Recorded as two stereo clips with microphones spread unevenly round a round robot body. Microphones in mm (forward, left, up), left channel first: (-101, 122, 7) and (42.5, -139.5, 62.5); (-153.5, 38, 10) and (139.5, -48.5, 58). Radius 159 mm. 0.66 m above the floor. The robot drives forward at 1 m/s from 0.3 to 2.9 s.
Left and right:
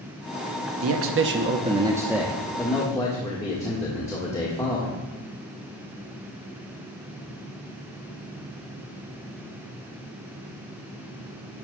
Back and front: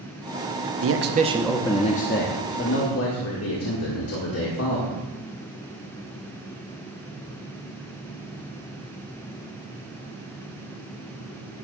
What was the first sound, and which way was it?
A man speaking, 40° right.